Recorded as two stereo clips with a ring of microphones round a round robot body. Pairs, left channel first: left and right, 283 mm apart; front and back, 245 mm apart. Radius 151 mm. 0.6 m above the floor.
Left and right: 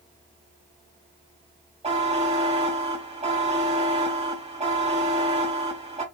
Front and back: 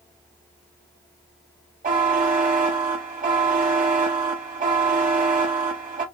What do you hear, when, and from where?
1.8 s a buzzer: 145° right, 1.3 m